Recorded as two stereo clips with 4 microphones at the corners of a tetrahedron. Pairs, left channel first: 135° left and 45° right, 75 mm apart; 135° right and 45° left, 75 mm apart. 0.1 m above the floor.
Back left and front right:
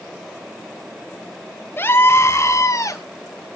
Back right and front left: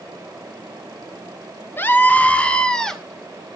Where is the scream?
Straight behind, 1.6 m; by 3.0 s 140° left, 1.7 m.